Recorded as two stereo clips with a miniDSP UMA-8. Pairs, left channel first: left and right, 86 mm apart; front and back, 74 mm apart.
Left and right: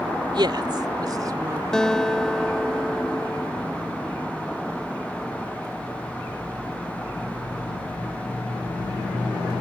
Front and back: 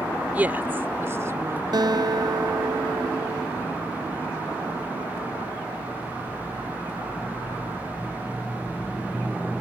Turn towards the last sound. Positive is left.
turn(degrees=175)